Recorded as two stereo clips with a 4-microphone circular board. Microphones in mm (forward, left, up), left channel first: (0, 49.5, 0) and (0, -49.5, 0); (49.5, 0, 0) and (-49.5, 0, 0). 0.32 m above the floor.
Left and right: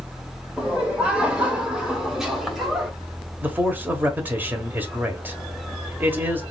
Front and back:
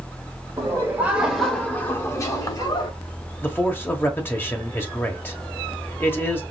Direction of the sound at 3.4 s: 40° right.